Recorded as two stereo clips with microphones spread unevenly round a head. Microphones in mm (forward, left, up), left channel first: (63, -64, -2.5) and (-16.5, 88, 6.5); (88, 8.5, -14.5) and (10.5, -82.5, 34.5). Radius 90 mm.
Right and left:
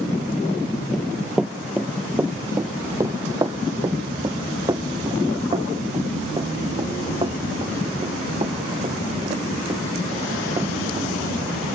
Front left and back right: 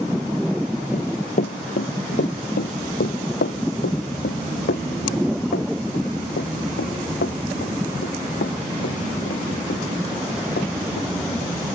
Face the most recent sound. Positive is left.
turn(degrees=55)